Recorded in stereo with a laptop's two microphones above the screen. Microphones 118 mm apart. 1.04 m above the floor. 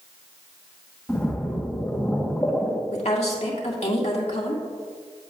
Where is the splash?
10° left (ahead or behind), 1.2 m.